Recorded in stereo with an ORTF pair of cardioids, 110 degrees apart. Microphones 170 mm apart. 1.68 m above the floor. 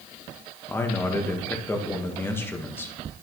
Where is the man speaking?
15° left, 1.3 m.